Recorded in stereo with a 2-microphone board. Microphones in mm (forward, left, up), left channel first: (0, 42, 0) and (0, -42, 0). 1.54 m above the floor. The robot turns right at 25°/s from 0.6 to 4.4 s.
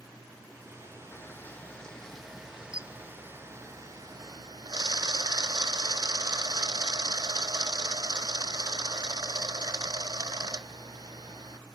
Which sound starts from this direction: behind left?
A camera shutter, at 1.1 s.